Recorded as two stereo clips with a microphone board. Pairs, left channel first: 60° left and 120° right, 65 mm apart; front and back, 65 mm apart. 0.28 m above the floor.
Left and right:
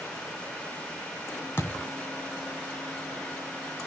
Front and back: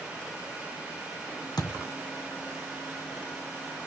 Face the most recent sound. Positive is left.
turn(degrees=5)